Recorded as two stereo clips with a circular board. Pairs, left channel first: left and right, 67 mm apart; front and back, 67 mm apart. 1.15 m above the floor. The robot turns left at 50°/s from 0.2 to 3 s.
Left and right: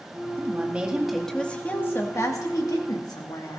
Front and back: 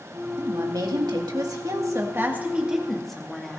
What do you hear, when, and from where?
0.4 s a woman speaking: 145° right, 2 m; by 3.6 s 85° left, 2 m